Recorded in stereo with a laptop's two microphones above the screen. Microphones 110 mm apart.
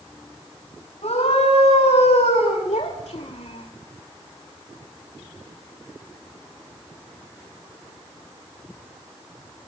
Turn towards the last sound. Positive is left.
turn(degrees=75)  # may be behind; listen again after turning